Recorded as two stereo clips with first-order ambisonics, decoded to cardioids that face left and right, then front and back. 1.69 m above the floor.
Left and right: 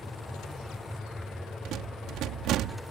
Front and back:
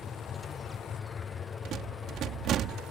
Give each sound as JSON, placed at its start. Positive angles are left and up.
{"t": 0.0, "sound": "an aircraft", "azimuth_deg": 10}
{"t": 1.6, "sound": "a rattle", "azimuth_deg": -130}